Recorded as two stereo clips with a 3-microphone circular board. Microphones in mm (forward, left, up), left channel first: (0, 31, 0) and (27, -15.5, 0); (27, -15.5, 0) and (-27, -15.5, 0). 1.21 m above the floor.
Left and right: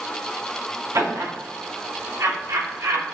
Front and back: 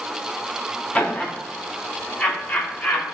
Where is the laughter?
70° right, 3.5 m.